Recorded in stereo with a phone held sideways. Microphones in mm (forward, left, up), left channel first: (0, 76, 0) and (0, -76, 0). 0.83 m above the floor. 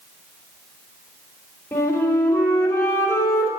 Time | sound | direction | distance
1.7 | a flute | 20° left (ahead or behind) | 1.6 m